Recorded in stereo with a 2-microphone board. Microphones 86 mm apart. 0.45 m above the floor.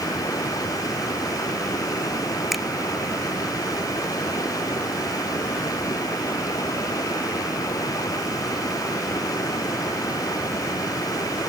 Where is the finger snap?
Centre (ahead or behind).